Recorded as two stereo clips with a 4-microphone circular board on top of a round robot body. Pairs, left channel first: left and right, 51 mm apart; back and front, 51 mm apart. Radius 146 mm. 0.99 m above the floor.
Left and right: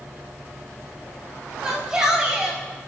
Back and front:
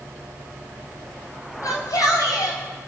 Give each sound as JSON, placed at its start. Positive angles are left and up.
{"t": 1.6, "sound": "a shout", "azimuth_deg": -170, "distance_m": 7.5}